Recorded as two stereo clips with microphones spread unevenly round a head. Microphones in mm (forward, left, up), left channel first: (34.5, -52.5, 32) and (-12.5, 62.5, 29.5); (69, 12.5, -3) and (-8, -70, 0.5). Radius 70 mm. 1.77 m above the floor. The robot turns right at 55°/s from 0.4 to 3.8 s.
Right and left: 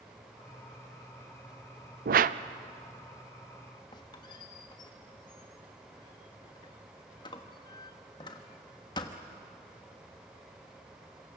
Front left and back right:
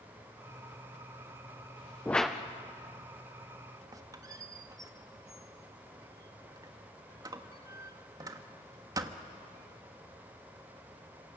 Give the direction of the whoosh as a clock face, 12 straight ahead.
8 o'clock.